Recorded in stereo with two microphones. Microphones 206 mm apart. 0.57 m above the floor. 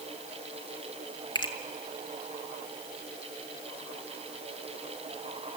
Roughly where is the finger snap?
Left.